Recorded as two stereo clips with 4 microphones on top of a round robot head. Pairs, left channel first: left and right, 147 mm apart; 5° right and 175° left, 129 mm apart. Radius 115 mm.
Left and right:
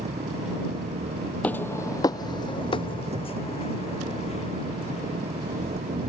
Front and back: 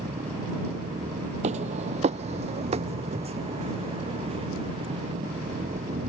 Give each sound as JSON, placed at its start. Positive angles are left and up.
{"t": 0.0, "sound": "an engine running", "azimuth_deg": -135}
{"t": 1.4, "sound": "footsteps", "azimuth_deg": 170}